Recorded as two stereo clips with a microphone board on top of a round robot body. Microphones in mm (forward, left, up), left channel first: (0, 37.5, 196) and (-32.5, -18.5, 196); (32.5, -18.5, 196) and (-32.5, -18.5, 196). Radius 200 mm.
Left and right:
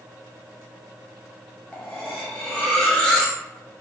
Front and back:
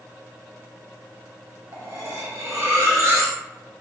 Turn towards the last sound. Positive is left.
turn(degrees=135)